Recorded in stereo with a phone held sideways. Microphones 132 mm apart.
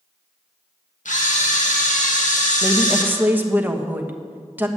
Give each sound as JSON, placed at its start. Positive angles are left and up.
{"t": 1.1, "sound": "a camera shutter", "side_deg": 85, "distance_m": 1.8}
{"t": 2.6, "sound": "a woman speaking", "side_deg": -15, "distance_m": 1.2}